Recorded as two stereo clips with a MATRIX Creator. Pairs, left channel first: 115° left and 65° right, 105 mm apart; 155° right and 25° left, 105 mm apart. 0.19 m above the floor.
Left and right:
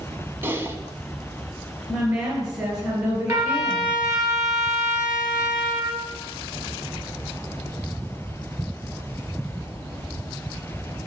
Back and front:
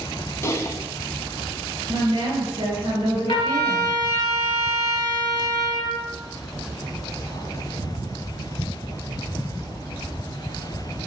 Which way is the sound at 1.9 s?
15° right.